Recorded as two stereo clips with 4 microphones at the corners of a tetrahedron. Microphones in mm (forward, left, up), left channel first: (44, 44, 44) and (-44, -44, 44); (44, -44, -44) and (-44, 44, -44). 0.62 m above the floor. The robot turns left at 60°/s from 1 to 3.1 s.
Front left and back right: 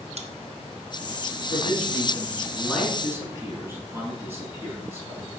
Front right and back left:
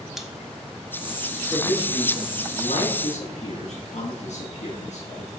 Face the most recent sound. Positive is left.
turn(degrees=-65)